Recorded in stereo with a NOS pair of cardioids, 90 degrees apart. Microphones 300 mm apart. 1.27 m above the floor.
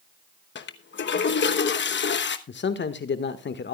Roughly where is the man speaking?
Ahead left.